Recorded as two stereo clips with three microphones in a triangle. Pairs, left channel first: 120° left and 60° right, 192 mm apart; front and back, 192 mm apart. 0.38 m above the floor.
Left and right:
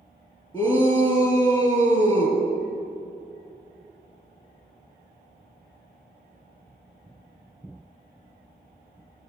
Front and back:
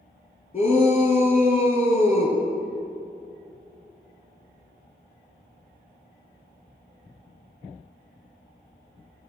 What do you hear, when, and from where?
0.5 s a shout: 55° left, 3 m